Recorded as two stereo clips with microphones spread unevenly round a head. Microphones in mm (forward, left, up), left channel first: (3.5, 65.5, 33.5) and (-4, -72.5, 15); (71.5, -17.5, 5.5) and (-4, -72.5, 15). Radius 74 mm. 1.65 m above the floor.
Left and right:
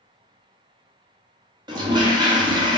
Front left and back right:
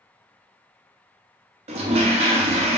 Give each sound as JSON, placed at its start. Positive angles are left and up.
{"t": 1.7, "sound": "a toilet flushing", "azimuth_deg": -155, "distance_m": 0.7}